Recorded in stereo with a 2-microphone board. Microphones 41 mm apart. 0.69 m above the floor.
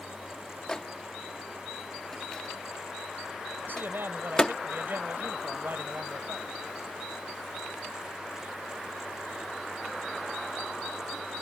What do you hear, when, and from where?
0.7 s a microwave: 15° left (ahead or behind)
3.6 s a man speaking: 55° right (ahead or behind)